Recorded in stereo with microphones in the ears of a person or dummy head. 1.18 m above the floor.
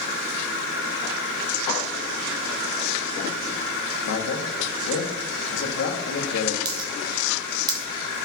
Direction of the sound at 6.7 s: 20° right (ahead or behind).